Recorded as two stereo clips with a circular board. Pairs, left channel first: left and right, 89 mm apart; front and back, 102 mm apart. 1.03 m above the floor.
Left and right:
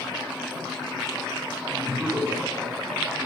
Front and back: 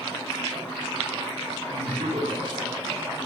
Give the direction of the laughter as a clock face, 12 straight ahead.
6 o'clock.